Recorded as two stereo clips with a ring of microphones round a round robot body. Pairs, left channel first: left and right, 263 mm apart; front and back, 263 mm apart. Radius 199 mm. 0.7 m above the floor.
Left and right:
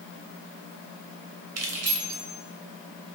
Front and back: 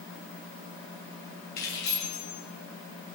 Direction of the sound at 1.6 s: 65° right.